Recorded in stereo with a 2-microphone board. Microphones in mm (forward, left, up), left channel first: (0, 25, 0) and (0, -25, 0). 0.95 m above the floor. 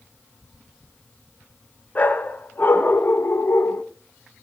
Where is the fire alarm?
I don't hear a fire alarm.